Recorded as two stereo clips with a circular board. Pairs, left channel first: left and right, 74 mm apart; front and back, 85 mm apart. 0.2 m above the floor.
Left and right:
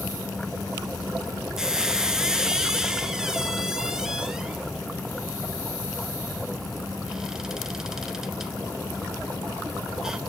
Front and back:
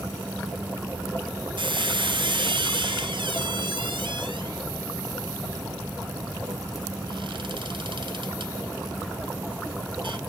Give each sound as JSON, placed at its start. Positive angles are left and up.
{"t": 1.6, "sound": "a squeak", "azimuth_deg": -175, "distance_m": 0.5}